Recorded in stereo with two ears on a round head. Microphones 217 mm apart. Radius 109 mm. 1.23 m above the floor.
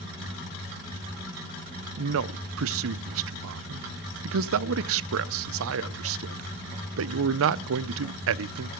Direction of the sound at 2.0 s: 55° right (ahead or behind).